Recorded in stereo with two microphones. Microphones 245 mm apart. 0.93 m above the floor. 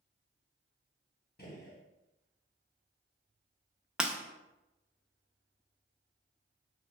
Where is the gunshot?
40° left (ahead or behind), 0.7 m.